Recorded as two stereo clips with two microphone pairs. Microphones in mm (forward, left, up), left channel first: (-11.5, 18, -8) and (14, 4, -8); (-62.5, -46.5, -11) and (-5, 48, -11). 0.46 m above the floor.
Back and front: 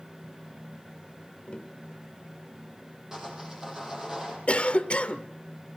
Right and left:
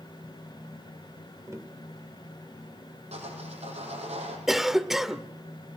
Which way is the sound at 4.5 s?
145° left.